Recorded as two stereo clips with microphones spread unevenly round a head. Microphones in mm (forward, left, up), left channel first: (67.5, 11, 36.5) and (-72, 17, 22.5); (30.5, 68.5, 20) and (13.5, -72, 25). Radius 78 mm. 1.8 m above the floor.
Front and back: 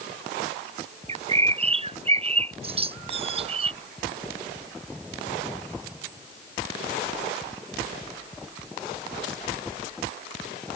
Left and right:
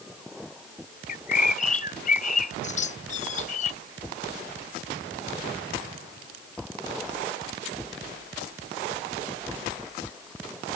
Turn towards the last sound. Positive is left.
turn(degrees=130)